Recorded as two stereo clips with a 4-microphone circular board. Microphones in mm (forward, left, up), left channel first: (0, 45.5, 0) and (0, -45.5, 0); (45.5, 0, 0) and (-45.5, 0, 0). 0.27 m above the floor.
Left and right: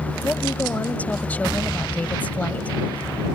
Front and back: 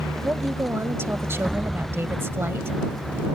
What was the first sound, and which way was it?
A woman speaking, 145° left.